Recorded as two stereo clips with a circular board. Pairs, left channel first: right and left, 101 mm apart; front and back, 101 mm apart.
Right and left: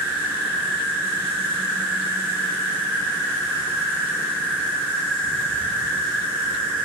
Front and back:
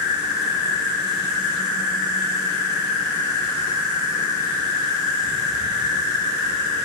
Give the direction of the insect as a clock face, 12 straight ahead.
7 o'clock.